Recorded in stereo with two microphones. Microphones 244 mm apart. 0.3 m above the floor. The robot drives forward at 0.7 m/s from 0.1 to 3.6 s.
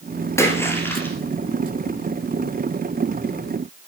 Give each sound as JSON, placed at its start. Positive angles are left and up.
{"t": 0.4, "sound": "a splash", "side_deg": 10, "distance_m": 1.4}